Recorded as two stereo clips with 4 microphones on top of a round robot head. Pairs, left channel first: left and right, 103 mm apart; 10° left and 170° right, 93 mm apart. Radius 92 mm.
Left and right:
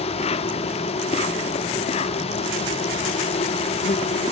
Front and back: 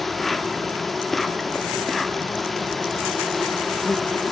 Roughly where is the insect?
Left.